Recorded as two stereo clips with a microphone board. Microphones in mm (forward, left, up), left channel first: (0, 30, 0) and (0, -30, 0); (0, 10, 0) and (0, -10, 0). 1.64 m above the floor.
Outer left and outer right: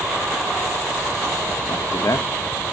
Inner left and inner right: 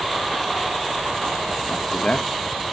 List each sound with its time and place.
1.7 s a man speaking: 75° left (ahead or behind), 0.9 m